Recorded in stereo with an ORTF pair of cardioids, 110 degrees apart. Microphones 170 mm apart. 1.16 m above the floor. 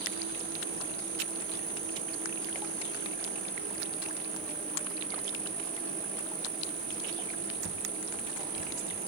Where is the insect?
55° right, 1.0 m.